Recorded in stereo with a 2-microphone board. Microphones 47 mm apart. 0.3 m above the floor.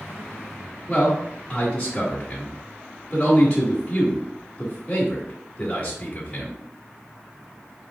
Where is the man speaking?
20° left (ahead or behind), 0.9 m.